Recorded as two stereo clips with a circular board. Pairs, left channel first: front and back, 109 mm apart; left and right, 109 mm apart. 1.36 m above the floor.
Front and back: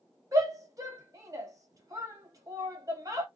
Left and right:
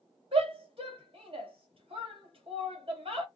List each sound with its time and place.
0.3 s a shout: 120° right, 1.3 m